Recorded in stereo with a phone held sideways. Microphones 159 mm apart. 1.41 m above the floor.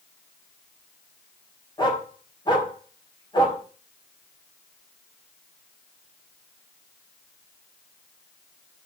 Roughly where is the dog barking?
Left.